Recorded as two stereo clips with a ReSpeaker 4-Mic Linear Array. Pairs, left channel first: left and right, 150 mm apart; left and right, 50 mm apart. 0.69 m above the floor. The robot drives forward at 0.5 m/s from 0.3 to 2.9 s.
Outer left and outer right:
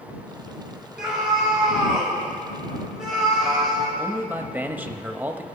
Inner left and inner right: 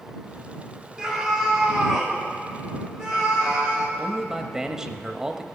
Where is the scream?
5° right (ahead or behind), 2.5 m.